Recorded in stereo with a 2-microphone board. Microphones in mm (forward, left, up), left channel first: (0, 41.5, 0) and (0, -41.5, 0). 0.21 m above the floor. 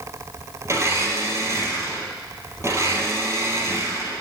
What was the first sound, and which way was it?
A blender, 35° right (ahead or behind).